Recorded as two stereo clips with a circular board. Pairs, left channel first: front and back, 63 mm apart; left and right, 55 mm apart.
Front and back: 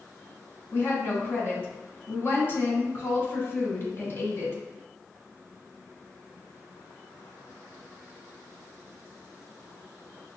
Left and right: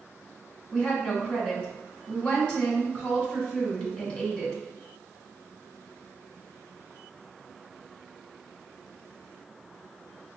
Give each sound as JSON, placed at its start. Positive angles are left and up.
{"t": 0.7, "sound": "a woman speaking", "azimuth_deg": 30, "distance_m": 1.3}